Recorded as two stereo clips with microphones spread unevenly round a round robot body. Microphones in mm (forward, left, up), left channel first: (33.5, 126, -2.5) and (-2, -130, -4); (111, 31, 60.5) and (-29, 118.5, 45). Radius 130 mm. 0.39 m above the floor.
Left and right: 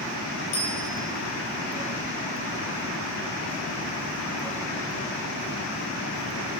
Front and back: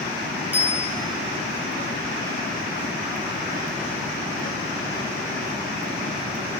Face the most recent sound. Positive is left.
turn(degrees=70)